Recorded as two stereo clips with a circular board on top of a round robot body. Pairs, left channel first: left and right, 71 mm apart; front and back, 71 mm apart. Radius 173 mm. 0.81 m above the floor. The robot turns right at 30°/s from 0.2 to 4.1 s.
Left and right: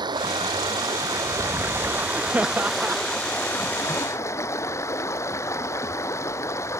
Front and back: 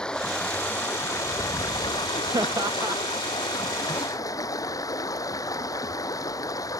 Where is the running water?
80° right; by 6.8 s 40° left.